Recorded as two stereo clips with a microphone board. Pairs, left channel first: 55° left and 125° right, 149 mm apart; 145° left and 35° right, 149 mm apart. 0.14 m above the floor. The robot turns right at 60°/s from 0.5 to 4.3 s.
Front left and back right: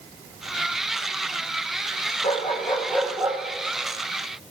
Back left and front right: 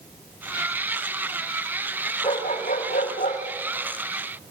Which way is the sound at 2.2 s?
95° left.